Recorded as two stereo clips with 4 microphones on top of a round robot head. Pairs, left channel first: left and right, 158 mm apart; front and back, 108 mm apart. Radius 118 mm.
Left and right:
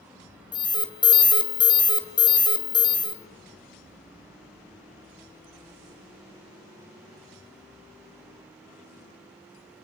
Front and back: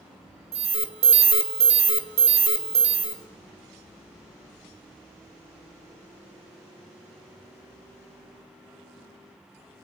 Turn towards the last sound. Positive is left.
turn(degrees=155)